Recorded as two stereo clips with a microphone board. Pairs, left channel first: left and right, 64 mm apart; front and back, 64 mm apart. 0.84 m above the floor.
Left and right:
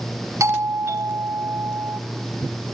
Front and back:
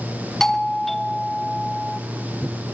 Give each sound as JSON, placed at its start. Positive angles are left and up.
{"t": 0.4, "sound": "a doorbell", "azimuth_deg": -85, "distance_m": 2.0}